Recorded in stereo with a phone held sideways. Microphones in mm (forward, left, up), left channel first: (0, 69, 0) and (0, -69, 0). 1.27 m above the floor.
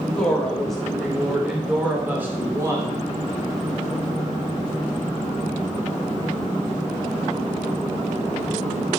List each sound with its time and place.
0.1 s a woman speaking: 10° left (ahead or behind), 4.5 m; by 3.0 s 25° right (ahead or behind), 3 m